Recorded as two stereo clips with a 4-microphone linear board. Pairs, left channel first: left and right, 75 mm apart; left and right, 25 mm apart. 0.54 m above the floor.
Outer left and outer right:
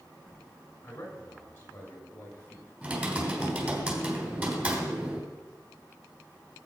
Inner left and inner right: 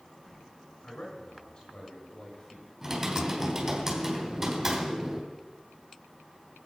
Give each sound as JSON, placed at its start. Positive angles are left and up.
{"t": 0.8, "sound": "a man speaking", "side_deg": 25, "distance_m": 5.0}
{"t": 2.8, "sound": "typing on a keyboard", "side_deg": -20, "distance_m": 3.5}